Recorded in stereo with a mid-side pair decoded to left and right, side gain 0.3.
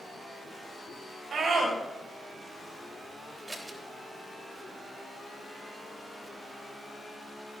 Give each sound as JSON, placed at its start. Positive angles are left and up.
{"t": 1.3, "sound": "a scream", "azimuth_deg": -60, "distance_m": 7.0}
{"t": 3.5, "sound": "scissors", "azimuth_deg": -25, "distance_m": 3.5}